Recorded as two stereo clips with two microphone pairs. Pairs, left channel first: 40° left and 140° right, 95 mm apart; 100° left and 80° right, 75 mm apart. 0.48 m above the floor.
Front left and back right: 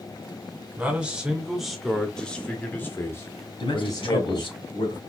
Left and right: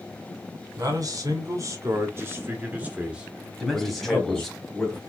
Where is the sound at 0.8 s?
70° right, 2 m; by 4.5 s 25° left, 2.0 m.